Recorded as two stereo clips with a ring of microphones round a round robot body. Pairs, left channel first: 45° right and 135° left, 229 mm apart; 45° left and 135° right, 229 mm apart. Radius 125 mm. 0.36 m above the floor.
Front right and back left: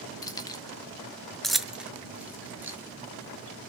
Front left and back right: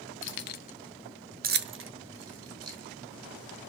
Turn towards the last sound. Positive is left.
turn(degrees=-145)